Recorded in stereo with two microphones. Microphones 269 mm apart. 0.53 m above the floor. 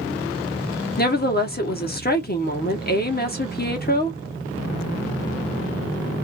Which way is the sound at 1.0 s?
35° left (ahead or behind).